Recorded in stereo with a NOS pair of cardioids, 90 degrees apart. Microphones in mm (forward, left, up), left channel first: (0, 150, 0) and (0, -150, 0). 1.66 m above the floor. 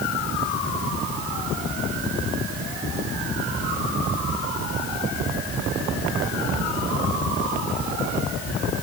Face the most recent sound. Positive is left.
No sound to turn to.